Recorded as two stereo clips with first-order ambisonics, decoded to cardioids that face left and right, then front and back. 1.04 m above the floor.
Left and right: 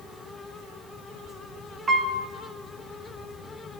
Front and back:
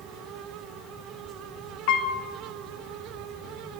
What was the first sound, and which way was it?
A piano, 20° right.